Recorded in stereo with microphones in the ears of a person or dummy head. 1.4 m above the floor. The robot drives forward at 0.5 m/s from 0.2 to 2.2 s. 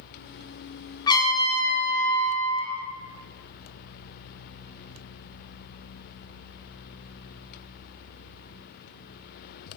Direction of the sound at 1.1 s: 20° left (ahead or behind).